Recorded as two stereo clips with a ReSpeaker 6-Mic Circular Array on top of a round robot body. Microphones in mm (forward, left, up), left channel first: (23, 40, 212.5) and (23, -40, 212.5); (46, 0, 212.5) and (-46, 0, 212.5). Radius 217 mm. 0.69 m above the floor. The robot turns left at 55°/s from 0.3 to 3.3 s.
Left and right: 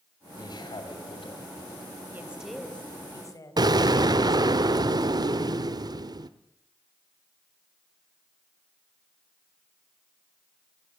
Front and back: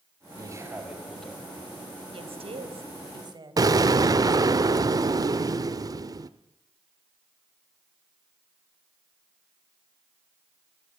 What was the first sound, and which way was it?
A man speaking, 135° left.